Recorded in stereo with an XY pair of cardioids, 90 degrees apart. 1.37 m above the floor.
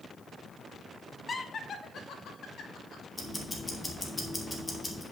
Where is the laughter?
35° left, 0.8 m; by 3.0 s 80° left, 1.9 m.